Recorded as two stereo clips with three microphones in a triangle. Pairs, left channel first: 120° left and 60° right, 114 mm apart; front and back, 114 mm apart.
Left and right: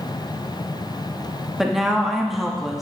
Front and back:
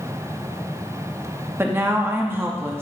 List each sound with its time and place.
1.6 s a woman speaking: 145° right, 0.9 m